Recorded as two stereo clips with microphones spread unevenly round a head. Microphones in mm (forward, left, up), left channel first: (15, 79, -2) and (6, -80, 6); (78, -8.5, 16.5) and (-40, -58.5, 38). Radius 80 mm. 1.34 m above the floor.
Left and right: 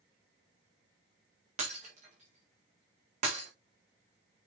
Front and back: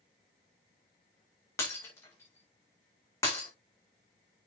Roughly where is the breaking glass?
Ahead right.